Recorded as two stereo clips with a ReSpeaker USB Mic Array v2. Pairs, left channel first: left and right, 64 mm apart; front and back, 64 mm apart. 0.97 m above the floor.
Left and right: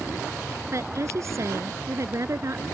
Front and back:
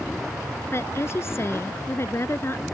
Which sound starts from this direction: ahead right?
A woman speaking, at 0.7 s.